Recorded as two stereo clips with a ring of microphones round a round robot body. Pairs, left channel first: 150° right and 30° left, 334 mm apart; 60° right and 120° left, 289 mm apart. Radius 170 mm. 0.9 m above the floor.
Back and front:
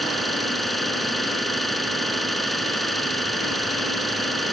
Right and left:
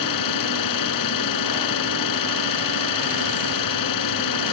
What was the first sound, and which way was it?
An engine running, 60° right.